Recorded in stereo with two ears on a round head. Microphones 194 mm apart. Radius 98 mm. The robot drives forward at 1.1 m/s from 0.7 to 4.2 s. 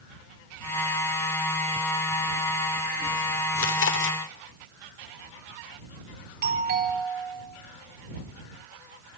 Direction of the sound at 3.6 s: 70° left (ahead or behind).